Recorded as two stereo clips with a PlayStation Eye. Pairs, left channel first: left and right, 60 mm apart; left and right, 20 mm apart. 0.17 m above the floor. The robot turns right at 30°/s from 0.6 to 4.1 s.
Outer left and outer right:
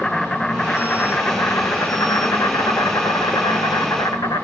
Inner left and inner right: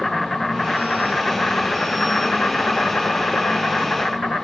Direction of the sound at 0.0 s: 10° left.